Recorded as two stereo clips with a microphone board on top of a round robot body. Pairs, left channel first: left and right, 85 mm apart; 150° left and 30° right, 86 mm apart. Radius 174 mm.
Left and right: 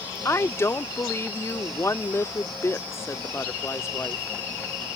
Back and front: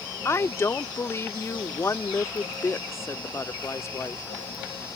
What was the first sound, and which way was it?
A woman speaking, 120° left.